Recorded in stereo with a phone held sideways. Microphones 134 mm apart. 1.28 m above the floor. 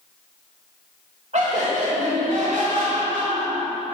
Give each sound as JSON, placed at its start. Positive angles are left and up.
{"t": 1.3, "sound": "laughter", "side_deg": -60, "distance_m": 2.0}